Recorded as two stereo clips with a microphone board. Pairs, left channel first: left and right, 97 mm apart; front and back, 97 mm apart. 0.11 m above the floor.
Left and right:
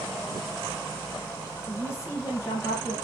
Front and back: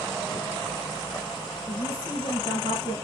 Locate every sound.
1.7 s a woman speaking: 30° left, 5.5 m